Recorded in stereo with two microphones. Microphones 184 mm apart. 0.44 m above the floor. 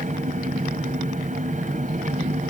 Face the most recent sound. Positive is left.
turn(degrees=-40)  # may be behind; listen again after turning